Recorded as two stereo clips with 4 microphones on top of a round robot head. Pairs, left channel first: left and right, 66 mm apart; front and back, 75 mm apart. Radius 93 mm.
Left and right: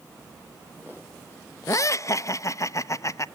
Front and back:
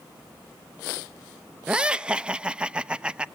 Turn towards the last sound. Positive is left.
turn(degrees=105)